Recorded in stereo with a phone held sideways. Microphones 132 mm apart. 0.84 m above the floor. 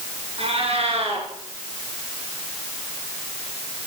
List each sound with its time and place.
0.4 s a cat meowing: 50° right (ahead or behind), 4 m